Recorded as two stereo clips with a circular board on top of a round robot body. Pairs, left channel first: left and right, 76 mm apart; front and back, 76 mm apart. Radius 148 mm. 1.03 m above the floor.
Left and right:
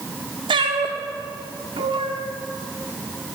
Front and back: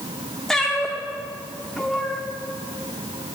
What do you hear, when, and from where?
0.5 s a cat meowing: 85° right, 0.9 m